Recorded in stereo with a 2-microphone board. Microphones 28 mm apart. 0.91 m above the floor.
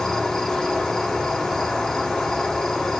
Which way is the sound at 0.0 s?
15° left (ahead or behind).